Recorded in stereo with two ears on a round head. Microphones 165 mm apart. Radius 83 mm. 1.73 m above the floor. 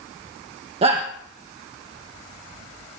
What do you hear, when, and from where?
0.8 s a shout: 30° right (ahead or behind), 1.8 m